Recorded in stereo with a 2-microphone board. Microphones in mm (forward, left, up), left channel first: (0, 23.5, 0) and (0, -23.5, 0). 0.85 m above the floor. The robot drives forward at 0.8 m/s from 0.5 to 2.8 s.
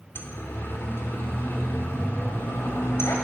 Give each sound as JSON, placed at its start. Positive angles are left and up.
{"t": 0.1, "sound": "a siren", "side_deg": 60, "distance_m": 3.0}